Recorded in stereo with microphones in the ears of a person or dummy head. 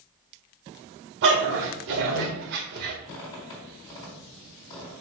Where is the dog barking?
65° right (ahead or behind), 1.7 m; by 3.0 s 55° right (ahead or behind), 1.7 m.